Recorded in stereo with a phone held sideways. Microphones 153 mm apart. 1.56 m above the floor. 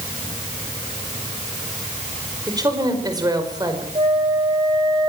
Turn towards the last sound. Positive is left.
turn(degrees=-40)  # may be behind; listen again after turning